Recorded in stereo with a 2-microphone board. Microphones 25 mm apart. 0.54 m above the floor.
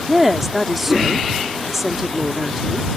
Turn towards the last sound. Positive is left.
turn(degrees=-10)  # may be behind; listen again after turning